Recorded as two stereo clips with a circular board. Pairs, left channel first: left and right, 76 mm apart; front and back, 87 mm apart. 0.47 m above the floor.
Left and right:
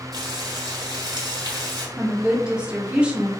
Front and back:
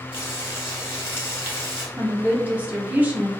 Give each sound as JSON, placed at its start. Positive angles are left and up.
{"t": 0.1, "sound": "frying", "azimuth_deg": -60, "distance_m": 1.5}
{"t": 2.0, "sound": "a woman speaking", "azimuth_deg": -145, "distance_m": 0.7}